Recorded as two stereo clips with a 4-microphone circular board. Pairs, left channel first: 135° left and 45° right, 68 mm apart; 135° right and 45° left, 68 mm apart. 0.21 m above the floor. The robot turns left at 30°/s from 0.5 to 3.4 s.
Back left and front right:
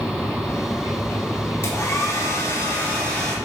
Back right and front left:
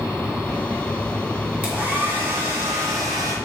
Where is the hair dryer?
110° left, 3 m; by 3.4 s 55° left, 3 m.